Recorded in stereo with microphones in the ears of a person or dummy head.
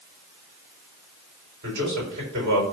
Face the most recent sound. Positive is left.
turn(degrees=-65)  # may be behind; listen again after turning